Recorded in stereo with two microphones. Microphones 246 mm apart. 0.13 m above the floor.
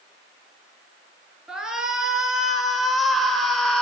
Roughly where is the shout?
Centre.